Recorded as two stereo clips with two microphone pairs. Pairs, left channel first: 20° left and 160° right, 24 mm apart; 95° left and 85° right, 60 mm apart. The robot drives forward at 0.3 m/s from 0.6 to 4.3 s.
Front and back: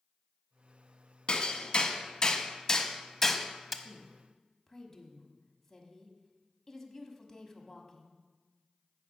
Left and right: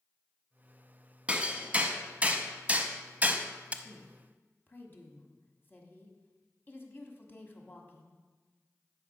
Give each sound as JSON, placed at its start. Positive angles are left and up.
{"t": 1.3, "sound": "hammering", "azimuth_deg": -20, "distance_m": 1.1}
{"t": 3.8, "sound": "a woman speaking", "azimuth_deg": 75, "distance_m": 1.3}